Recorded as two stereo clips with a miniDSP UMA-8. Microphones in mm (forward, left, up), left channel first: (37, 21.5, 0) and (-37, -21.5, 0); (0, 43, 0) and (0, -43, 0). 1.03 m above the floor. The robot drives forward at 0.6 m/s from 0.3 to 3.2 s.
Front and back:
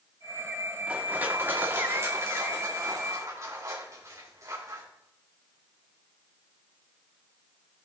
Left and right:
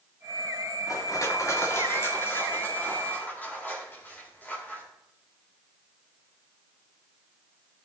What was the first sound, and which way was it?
Crushing, 135° left.